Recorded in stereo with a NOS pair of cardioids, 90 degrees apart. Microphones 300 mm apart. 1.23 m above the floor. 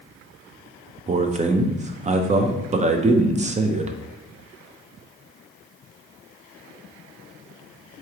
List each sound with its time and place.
1.1 s a man speaking: 25° right, 0.6 m